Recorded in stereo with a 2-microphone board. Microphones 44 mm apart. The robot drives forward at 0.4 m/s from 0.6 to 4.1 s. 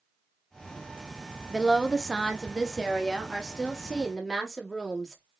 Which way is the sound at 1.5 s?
5° right (ahead or behind).